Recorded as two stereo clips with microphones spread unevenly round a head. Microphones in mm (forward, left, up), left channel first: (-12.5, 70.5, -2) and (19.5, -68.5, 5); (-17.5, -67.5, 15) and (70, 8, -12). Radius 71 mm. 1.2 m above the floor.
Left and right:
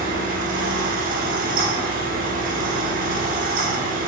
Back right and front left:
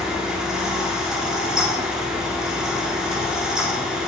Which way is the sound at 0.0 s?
45° right.